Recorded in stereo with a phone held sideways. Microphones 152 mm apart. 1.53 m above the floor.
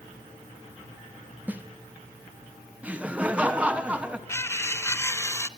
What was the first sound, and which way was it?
A snare drum, 10° right (ahead or behind).